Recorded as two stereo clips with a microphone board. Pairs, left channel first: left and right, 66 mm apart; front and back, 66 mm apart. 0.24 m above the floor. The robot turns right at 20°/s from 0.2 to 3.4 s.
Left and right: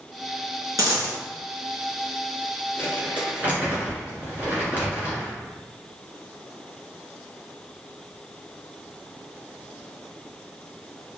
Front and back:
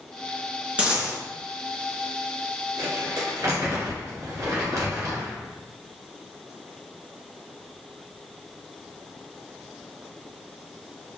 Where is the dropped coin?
110° right, 1.6 m; by 1.2 s 100° right, 1.6 m.